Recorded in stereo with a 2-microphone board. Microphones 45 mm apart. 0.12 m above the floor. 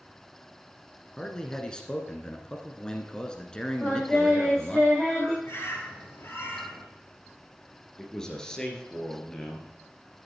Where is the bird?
60° left (ahead or behind), 2.5 m.